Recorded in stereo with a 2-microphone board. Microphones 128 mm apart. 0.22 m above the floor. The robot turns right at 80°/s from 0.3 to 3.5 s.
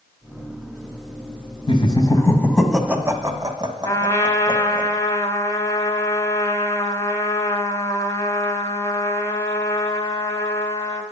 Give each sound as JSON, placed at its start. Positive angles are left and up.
{"t": 1.7, "sound": "laughter", "side_deg": 40, "distance_m": 1.4}
{"t": 3.9, "sound": "a trumpet", "side_deg": 25, "distance_m": 1.1}